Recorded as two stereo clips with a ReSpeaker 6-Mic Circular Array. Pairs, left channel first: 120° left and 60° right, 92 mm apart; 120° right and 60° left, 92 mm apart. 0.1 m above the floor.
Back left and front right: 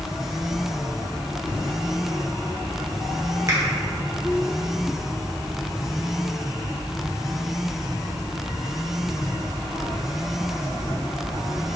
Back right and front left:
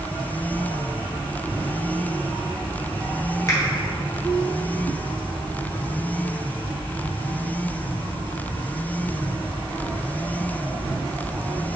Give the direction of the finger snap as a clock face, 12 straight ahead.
3 o'clock.